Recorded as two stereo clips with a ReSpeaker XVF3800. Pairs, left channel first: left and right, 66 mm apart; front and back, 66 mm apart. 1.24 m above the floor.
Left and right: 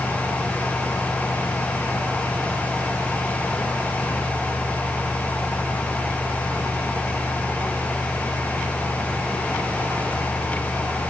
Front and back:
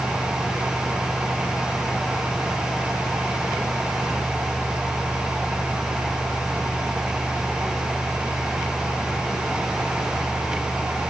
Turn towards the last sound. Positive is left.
No sound to turn to.